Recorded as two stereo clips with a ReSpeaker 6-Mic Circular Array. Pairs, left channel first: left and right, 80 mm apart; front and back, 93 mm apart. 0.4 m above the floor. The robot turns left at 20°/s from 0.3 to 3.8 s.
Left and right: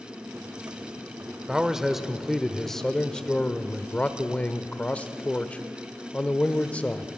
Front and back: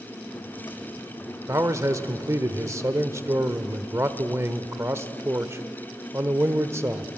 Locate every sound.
1.5 s a man speaking: 165° right, 0.9 m; by 7.1 s 150° left, 0.9 m